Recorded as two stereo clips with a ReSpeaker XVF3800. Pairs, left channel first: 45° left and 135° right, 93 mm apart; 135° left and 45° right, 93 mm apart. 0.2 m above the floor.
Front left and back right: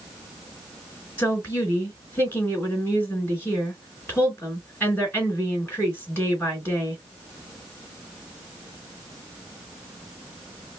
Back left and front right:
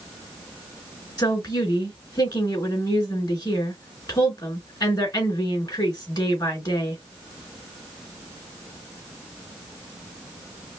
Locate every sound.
1.2 s a woman speaking: 105° left, 3 m